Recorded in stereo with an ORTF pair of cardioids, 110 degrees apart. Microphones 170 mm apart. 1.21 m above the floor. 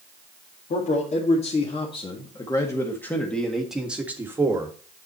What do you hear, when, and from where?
0.7 s a man speaking: 45° left, 2 m; by 4.7 s 20° right, 1.9 m